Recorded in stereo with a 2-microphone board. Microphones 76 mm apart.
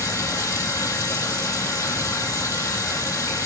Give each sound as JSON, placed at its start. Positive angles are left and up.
{"t": 0.0, "sound": "running water", "side_deg": 45, "distance_m": 2.5}